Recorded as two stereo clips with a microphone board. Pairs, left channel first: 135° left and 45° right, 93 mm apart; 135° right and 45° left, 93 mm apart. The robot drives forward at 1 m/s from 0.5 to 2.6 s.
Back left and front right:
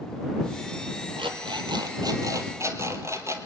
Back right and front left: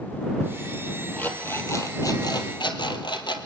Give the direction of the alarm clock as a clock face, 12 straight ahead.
2 o'clock.